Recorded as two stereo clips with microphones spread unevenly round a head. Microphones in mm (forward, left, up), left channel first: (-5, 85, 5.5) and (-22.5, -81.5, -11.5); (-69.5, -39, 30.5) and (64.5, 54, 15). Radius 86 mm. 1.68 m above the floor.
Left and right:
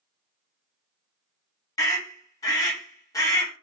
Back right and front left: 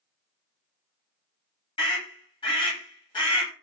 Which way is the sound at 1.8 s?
155° left.